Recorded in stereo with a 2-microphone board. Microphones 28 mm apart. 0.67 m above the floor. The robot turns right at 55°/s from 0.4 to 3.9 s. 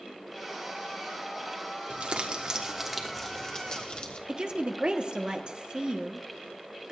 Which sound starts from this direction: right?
A woman speaking, at 4.3 s.